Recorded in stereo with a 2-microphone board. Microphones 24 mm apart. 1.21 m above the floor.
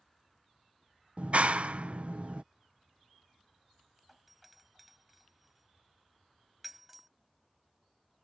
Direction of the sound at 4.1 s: 5° right (ahead or behind).